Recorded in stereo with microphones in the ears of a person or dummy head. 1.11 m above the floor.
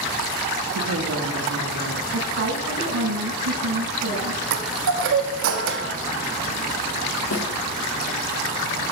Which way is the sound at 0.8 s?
75° right (ahead or behind).